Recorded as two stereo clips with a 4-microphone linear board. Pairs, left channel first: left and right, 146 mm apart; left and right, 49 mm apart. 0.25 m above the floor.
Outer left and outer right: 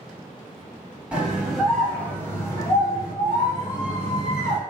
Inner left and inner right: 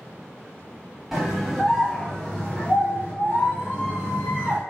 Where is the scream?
10° right (ahead or behind), 1.2 m; by 4.6 s 40° left (ahead or behind), 1.8 m.